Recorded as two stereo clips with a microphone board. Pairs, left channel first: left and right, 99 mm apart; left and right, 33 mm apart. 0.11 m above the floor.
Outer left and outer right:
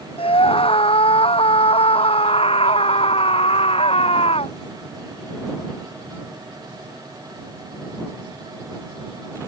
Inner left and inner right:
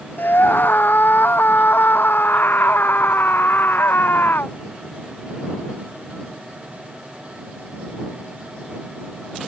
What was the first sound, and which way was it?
A scream, 70° left (ahead or behind).